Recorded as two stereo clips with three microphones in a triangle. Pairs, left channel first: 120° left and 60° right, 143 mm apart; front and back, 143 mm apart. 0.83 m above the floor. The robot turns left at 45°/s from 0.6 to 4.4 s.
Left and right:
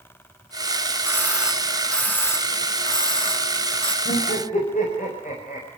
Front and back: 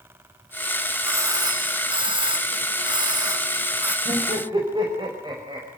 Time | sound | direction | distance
1.1 | a doorbell | 125° right | 1.0 m
4.0 | laughter | 140° left | 5 m